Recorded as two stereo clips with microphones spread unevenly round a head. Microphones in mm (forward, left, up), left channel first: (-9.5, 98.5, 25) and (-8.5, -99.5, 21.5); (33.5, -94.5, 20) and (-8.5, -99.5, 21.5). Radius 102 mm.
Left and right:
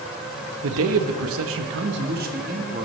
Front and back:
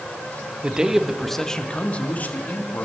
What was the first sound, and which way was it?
A man speaking, 105° right.